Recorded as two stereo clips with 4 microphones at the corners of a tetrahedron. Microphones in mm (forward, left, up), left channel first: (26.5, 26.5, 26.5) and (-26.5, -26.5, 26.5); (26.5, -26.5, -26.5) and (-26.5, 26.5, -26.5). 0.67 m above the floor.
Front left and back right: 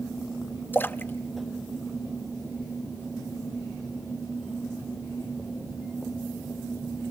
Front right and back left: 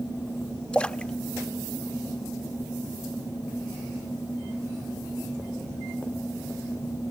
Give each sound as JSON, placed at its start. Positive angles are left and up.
{"t": 0.7, "sound": "a splash", "azimuth_deg": 15, "distance_m": 0.6}